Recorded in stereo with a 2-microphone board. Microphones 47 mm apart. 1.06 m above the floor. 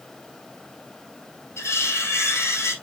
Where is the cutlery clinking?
85° left, 4 m.